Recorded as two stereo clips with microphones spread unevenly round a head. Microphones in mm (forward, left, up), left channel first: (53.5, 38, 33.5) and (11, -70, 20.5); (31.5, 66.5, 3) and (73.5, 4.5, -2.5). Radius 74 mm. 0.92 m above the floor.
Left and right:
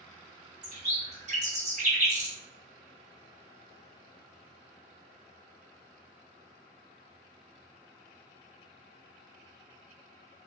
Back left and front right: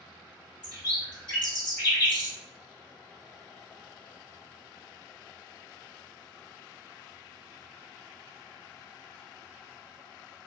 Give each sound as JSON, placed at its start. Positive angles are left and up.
{"t": 0.6, "sound": "a bird", "azimuth_deg": -155, "distance_m": 1.6}